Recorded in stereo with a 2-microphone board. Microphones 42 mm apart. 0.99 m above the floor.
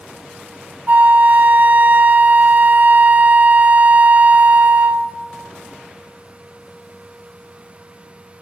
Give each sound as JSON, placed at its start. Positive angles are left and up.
{"t": 0.9, "sound": "a flute", "side_deg": -40, "distance_m": 0.6}